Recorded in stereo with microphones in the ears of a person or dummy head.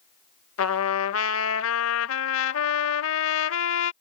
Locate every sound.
0.6 s a trumpet: 70° left (ahead or behind)